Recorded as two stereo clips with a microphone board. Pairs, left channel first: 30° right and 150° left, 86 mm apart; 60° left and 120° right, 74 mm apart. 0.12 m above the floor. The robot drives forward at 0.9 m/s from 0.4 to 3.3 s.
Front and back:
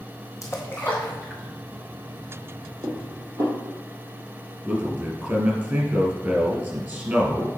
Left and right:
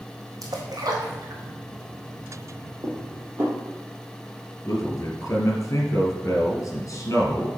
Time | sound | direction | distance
0.4 | a splash | 85° right | 1.7 m
2.8 | dishes clattering | 165° right | 1.9 m
4.7 | a man speaking | 90° left | 2 m